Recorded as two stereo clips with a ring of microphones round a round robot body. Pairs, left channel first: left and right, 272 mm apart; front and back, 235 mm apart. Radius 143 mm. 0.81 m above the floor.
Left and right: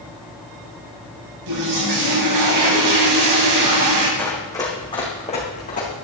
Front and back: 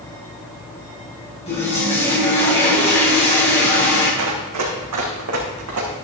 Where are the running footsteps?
175° left, 3.5 m; by 5.9 s 155° left, 4.5 m.